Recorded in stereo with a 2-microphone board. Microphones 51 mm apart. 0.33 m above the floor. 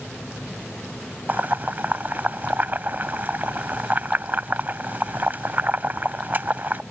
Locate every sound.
1.3 s boiling: 40° right (ahead or behind)